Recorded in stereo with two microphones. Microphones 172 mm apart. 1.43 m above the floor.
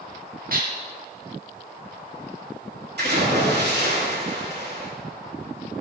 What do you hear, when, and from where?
0.5 s dishes clattering: 55° right (ahead or behind), 1.7 m
3.0 s a splash: 75° right (ahead or behind), 3.5 m